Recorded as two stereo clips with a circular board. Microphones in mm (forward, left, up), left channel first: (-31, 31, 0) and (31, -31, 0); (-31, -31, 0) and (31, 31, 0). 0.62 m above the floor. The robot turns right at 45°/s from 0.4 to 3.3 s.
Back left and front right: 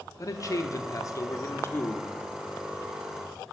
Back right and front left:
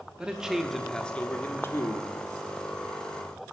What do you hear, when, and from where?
0.2 s a man speaking: 120° left, 1.0 m; by 2.1 s 165° right, 1.0 m